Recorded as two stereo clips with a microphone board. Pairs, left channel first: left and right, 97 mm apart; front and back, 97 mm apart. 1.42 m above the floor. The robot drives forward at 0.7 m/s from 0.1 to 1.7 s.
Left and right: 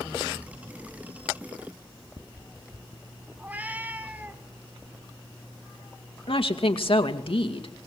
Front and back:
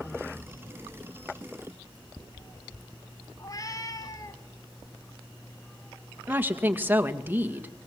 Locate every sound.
3.4 s a cat meowing: 25° right, 1.6 m
6.3 s a woman speaking: 110° left, 2 m